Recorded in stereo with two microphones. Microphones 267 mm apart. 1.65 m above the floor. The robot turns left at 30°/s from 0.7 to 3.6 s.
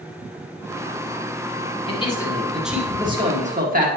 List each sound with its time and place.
1.9 s a man speaking: 20° left, 1.9 m; by 3.9 s 30° right, 1.9 m